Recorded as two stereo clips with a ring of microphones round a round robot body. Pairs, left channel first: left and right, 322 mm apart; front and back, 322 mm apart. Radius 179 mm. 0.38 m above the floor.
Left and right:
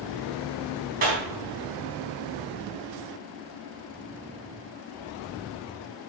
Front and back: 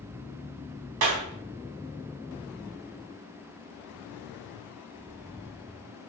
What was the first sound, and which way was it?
A clap, 155° right.